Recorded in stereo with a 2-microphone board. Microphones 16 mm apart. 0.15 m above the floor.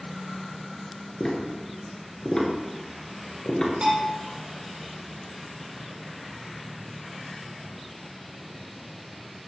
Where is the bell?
60° right (ahead or behind), 4 m.